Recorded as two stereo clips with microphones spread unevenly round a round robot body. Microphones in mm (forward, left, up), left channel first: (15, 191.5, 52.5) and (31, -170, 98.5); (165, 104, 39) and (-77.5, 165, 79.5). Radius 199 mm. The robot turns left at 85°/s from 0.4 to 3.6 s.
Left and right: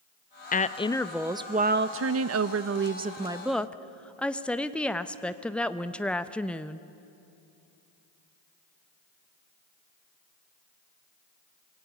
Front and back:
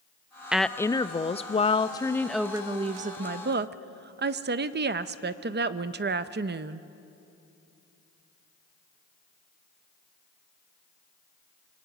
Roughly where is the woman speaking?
Ahead left.